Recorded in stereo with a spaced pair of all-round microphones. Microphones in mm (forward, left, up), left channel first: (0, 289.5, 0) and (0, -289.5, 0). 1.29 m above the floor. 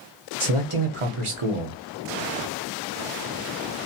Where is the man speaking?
60° right (ahead or behind), 0.9 m.